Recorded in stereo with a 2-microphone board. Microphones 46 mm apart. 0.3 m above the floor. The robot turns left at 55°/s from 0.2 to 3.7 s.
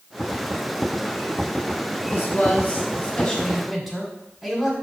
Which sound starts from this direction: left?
A man speaking, at 2.0 s.